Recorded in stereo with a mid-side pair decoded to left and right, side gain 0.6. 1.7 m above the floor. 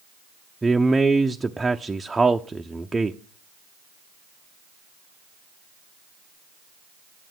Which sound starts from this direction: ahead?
A man speaking, at 0.6 s.